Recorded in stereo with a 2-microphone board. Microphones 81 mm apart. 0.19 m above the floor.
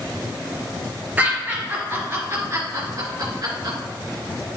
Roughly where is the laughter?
Right.